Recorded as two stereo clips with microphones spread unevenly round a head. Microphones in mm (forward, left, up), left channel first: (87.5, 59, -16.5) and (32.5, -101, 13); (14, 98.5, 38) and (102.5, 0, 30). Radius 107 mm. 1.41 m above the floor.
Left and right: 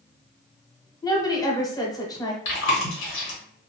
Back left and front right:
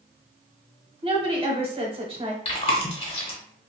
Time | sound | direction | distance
1.0 | a woman speaking | straight ahead | 1.1 m
2.5 | chewing | 85° left | 1.0 m